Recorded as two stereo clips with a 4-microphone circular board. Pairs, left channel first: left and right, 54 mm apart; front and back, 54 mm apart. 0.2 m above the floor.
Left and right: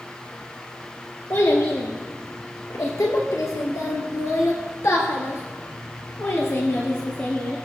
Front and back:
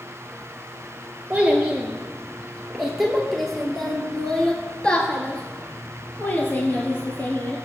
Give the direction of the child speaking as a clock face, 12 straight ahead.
8 o'clock.